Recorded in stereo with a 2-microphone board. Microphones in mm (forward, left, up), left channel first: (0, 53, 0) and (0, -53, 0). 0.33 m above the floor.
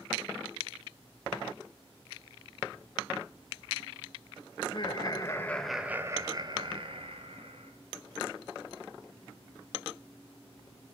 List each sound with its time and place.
4.6 s laughter: 50° left (ahead or behind), 1.9 m; by 7.7 s 70° right (ahead or behind), 3 m